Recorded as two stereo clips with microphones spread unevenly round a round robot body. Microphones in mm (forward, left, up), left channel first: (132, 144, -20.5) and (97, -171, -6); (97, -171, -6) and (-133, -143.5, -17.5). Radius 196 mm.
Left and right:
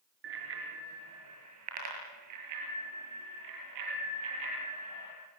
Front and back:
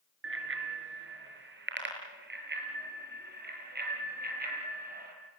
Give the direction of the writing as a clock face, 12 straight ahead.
No writing in this recording.